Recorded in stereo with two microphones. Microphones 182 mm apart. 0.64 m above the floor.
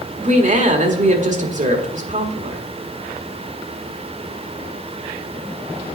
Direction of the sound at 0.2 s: 45° right (ahead or behind).